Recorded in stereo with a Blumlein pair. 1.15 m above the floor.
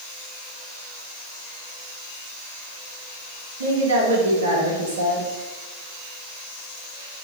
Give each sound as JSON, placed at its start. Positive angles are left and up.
{"t": 3.6, "sound": "a woman speaking", "azimuth_deg": -65, "distance_m": 1.0}